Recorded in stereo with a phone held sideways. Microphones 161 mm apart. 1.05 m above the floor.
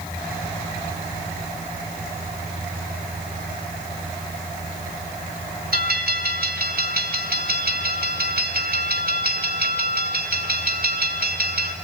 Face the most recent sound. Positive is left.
turn(degrees=-65)  # may be behind; listen again after turning